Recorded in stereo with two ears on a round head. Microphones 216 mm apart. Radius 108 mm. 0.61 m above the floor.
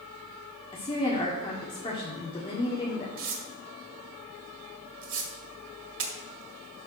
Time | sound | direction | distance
0.7 | a woman speaking | 25° left (ahead or behind) | 1.7 m
3.2 | tearing paper | 60° right (ahead or behind) | 1.7 m